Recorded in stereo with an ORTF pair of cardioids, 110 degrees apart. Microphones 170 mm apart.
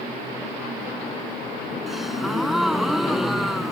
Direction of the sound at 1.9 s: Straight ahead.